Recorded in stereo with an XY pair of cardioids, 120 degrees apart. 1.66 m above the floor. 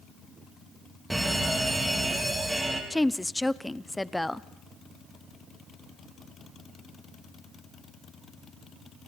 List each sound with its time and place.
1.1 s a fire alarm: 5° right, 4.5 m
2.9 s a woman speaking: 10° left, 0.8 m